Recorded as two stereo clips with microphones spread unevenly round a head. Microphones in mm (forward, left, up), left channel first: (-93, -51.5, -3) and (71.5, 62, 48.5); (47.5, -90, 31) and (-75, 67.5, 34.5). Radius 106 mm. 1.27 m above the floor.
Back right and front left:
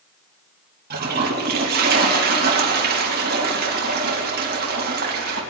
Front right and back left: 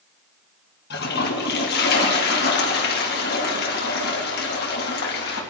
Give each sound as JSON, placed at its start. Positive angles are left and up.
{"t": 0.9, "sound": "a toilet flushing", "azimuth_deg": -10, "distance_m": 2.5}